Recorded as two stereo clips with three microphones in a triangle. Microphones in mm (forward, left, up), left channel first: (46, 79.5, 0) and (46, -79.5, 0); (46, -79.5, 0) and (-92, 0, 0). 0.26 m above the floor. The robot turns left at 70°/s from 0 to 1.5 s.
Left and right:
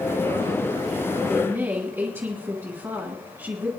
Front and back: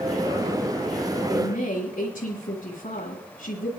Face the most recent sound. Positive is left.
turn(degrees=-20)